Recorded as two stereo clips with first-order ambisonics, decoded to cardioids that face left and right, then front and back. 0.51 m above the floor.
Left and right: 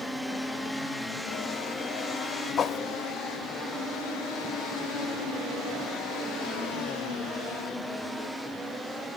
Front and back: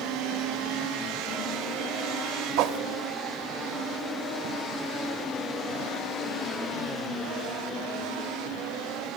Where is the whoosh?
150° left, 0.5 m.